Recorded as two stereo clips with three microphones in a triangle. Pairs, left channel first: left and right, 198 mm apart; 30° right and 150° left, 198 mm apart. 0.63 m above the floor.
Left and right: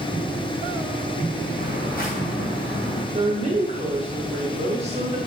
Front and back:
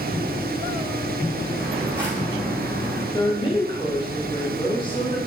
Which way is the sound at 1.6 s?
60° left.